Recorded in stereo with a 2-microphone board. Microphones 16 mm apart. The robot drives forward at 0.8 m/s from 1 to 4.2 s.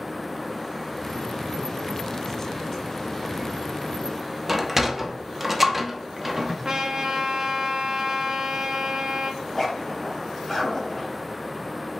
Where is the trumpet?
50° right (ahead or behind), 1.1 m.